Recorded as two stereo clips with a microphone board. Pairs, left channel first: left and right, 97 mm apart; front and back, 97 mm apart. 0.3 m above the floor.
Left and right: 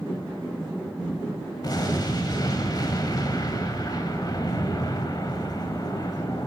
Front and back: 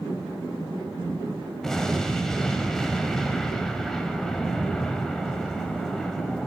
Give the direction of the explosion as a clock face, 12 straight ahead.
9 o'clock.